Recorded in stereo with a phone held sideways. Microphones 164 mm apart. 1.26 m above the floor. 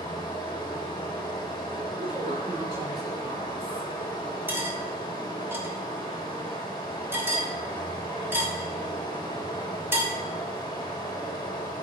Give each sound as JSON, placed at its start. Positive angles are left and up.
{"t": 0.0, "sound": "running water", "side_deg": 25, "distance_m": 1.1}
{"t": 2.0, "sound": "a woman speaking", "side_deg": -65, "distance_m": 2.5}
{"t": 4.5, "sound": "cutlery clinking", "side_deg": -15, "distance_m": 1.2}